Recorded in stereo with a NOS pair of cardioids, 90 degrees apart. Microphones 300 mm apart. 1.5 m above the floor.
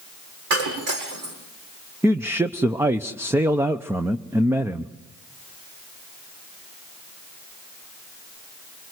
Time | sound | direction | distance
0.5 | breaking glass | 60° right | 7.5 m
2.0 | a man speaking | 10° right | 0.9 m